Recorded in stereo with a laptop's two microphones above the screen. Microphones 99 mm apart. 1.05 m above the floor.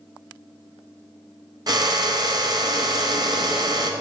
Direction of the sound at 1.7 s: 45° right (ahead or behind).